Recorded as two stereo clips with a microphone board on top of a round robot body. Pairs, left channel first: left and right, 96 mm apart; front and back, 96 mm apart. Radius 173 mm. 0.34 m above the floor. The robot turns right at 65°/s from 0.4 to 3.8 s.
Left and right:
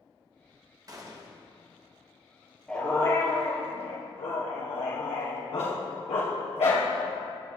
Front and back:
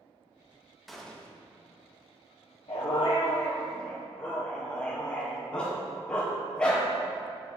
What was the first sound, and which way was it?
A gunshot, 90° right.